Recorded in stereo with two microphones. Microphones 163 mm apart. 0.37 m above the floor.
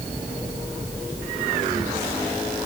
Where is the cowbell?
No cowbell in this recording.